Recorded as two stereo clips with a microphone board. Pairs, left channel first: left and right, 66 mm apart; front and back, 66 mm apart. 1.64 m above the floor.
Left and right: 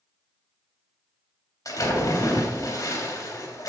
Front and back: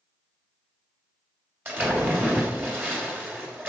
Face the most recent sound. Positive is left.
turn(degrees=120)